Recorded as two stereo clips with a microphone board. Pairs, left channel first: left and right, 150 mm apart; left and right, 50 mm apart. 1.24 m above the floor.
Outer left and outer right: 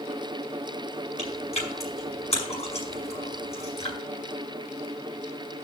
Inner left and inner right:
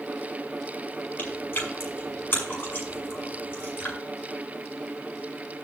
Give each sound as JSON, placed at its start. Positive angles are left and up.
{"t": 1.2, "sound": "chewing", "side_deg": 45, "distance_m": 6.0}